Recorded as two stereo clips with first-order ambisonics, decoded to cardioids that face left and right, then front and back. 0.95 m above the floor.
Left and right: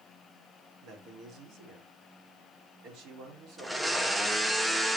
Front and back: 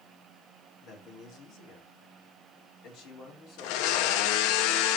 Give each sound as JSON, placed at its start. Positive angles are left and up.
{"t": 0.8, "sound": "a man speaking", "azimuth_deg": -50, "distance_m": 3.0}
{"t": 3.6, "sound": "a blender", "azimuth_deg": -5, "distance_m": 0.7}